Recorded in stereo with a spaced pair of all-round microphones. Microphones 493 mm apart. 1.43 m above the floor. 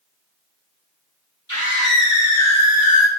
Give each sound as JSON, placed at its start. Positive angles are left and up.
{"t": 1.5, "sound": "a scream", "side_deg": 35, "distance_m": 5.5}